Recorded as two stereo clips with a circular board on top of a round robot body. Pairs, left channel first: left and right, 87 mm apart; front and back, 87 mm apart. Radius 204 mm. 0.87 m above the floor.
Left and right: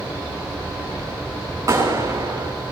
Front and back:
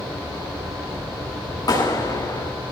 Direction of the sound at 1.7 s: 40° right.